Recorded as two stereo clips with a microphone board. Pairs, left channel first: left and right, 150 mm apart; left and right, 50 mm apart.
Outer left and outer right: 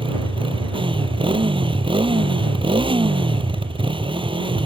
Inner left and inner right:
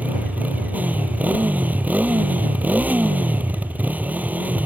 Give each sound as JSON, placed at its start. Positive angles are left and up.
{"t": 0.0, "sound": "a motorcycle", "side_deg": -35}